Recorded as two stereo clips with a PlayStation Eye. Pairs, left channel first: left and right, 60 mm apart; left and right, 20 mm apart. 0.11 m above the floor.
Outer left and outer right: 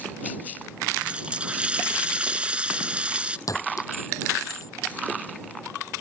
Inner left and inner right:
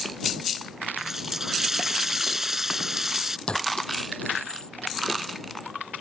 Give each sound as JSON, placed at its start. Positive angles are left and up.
{"t": 1.0, "sound": "a running tap", "side_deg": -20}
{"t": 3.5, "sound": "a clink", "side_deg": 65}